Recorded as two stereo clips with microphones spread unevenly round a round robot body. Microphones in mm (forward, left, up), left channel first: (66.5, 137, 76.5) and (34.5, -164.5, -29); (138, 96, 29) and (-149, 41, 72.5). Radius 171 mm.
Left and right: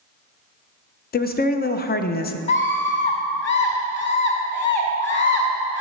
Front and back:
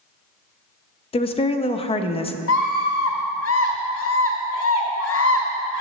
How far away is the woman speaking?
About 0.6 m.